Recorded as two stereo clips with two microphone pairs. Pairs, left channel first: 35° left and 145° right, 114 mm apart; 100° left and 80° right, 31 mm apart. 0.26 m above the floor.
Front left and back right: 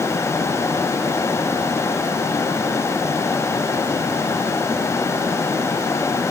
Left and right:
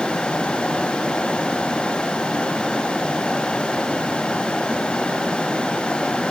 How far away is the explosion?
I don't hear an explosion.